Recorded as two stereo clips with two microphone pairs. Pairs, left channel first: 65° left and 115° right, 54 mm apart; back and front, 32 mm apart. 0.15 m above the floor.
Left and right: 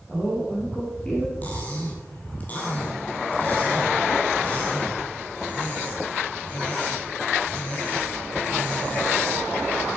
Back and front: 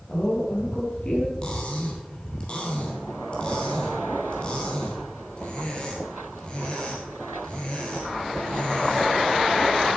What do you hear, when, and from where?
0.1 s a woman speaking: 135° left, 3.5 m
1.4 s cutlery clinking: 125° left, 2.5 m